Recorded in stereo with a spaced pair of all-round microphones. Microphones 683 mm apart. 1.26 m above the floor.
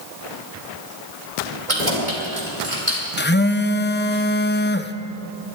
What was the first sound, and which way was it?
Keys jangling, 80° right.